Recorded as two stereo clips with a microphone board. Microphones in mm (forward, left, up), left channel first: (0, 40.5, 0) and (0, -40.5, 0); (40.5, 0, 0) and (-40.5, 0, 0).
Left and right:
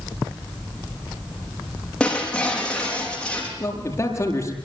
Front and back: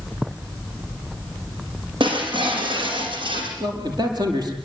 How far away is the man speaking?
About 7.5 m.